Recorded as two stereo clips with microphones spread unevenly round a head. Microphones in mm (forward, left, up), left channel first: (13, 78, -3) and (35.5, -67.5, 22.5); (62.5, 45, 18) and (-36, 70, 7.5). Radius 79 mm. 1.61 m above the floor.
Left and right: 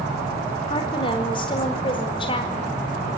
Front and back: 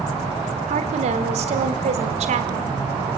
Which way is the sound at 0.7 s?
160° left.